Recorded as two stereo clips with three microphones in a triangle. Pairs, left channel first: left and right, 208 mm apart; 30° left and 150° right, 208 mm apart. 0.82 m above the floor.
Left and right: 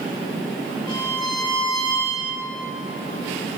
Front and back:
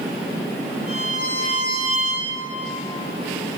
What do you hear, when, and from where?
0.9 s a violin: 160° left, 5 m